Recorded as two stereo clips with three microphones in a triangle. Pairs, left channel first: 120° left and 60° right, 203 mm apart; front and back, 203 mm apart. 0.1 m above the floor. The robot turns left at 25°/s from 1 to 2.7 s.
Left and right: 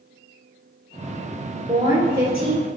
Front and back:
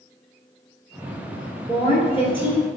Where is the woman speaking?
10° right, 1.3 m; by 2.7 s 35° right, 1.3 m.